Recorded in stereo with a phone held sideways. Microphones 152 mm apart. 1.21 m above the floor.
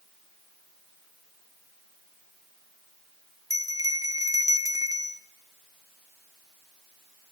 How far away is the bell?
About 0.9 m.